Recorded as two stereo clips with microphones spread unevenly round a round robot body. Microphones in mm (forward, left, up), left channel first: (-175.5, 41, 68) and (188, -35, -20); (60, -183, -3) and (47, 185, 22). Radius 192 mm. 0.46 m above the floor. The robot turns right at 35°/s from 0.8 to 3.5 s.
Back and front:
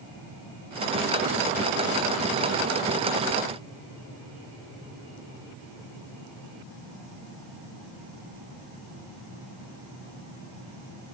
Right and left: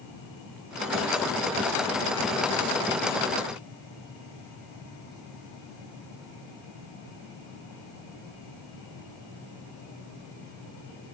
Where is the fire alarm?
I don't hear a fire alarm.